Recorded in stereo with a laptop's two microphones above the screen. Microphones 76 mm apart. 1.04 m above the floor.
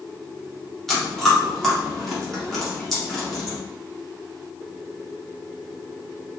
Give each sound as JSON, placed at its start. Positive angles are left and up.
{"t": 0.9, "sound": "chewing", "side_deg": 5, "distance_m": 0.9}